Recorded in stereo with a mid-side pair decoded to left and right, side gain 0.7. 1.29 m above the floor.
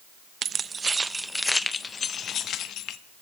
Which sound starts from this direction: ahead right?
Keys jangling, at 0.4 s.